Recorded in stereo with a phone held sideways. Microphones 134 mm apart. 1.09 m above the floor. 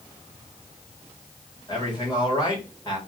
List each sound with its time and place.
1.7 s a man speaking: 35° left (ahead or behind), 1.3 m